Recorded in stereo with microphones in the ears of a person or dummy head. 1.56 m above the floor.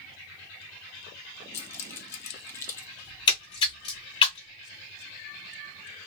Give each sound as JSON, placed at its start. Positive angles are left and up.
{"t": 1.5, "sound": "keys jangling", "side_deg": 20, "distance_m": 0.8}
{"t": 3.0, "sound": "a splash", "side_deg": 25, "distance_m": 0.5}